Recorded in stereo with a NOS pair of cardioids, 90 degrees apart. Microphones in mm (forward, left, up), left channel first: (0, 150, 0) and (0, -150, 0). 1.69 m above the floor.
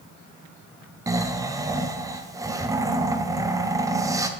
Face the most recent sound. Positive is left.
turn(degrees=-10)